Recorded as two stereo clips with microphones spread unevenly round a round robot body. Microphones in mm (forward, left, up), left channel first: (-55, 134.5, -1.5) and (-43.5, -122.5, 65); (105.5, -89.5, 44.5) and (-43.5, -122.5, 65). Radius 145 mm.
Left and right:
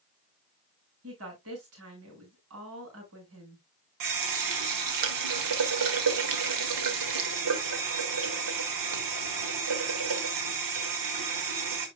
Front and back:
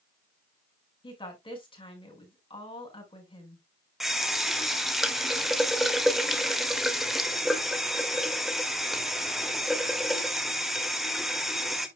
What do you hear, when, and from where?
1.0 s a woman speaking: 40° right, 5 m
4.0 s a running tap: 75° right, 1.8 m